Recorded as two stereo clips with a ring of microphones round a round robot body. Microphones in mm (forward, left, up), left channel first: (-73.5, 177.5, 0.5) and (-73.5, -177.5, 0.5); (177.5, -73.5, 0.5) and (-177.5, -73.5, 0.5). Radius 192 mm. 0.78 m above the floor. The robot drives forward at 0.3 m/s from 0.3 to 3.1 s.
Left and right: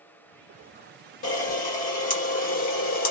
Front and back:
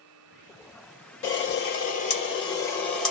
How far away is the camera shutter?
About 1.1 m.